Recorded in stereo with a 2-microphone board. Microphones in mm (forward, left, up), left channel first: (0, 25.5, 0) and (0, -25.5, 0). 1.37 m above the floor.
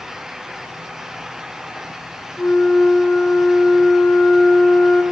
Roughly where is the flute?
Left.